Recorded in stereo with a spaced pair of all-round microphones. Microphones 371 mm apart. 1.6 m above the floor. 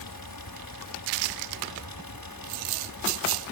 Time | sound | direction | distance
0.0 | a fan | 75° left (ahead or behind) | ?